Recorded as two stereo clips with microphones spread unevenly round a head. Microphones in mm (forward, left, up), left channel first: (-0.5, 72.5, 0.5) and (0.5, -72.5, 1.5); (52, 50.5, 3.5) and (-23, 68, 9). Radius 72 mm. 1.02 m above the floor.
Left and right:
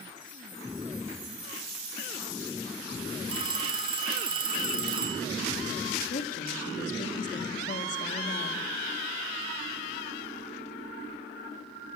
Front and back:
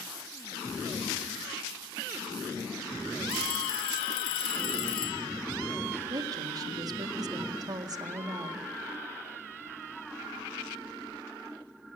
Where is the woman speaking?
130° left, 1.9 m.